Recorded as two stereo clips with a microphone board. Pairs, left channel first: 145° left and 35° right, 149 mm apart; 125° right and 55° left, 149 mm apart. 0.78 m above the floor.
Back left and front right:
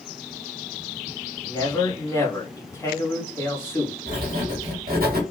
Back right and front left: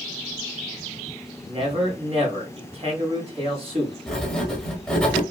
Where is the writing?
35° right, 1.2 m.